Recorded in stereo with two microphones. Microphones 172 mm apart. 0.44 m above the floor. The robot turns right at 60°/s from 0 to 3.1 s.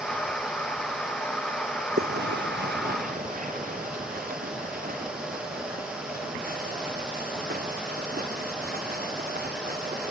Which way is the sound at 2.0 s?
70° right (ahead or behind).